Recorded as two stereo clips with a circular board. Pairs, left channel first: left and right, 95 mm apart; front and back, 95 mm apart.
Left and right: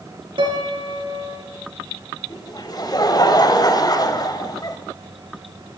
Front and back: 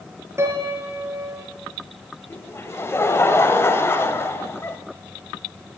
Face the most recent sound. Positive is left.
turn(degrees=55)